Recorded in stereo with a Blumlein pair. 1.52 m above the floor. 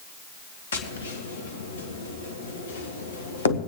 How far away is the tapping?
About 1.2 m.